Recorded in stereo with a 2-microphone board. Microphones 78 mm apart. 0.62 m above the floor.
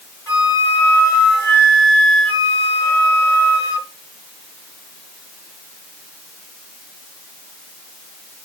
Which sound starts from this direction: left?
A flute, at 0.3 s.